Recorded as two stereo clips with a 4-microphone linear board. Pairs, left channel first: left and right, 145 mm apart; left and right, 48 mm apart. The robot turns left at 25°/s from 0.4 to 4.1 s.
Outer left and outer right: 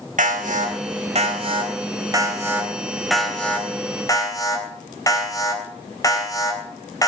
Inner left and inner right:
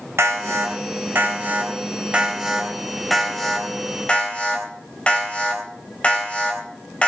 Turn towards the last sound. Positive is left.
turn(degrees=25)  # may be behind; listen again after turning